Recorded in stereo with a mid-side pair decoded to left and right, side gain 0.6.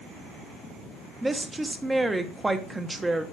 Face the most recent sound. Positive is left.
turn(degrees=-15)